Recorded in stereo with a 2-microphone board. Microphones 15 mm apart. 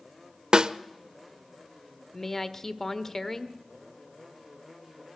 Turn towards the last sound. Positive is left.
turn(degrees=20)  # may be behind; listen again after turning